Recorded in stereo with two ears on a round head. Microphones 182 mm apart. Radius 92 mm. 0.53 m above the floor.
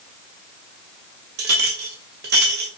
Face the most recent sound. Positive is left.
turn(degrees=-50)  # may be behind; listen again after turning